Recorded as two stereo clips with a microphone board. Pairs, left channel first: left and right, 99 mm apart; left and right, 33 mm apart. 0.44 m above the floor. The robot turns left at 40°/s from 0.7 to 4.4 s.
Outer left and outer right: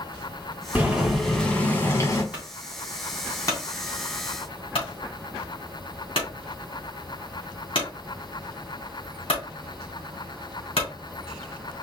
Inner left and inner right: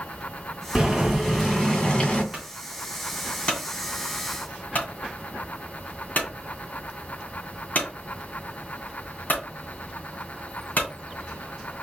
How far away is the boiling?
About 2.5 m.